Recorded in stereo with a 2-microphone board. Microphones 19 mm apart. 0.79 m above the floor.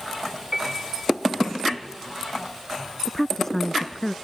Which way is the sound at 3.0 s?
20° left (ahead or behind).